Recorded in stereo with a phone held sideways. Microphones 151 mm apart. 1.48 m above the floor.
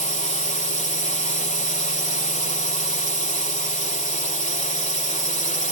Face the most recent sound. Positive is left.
turn(degrees=55)  # may be behind; listen again after turning